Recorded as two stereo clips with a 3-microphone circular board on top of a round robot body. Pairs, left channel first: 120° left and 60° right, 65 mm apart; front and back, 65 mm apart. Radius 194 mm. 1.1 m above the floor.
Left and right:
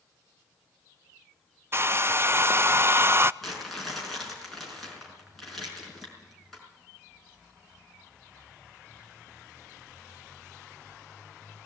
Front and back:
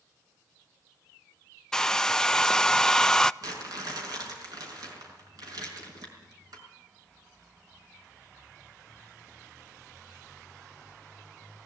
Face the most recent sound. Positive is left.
turn(degrees=-155)